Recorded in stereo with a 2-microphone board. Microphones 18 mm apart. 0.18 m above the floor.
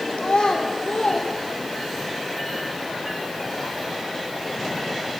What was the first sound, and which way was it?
A child speaking, 55° left (ahead or behind).